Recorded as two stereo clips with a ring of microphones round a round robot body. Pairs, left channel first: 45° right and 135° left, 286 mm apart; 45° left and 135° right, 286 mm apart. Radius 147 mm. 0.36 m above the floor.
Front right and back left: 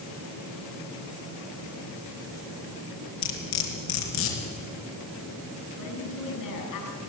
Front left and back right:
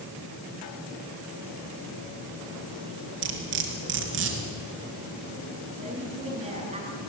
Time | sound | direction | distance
3.2 | cutlery clinking | 85° right | 4 m
5.8 | a woman speaking | 65° right | 6 m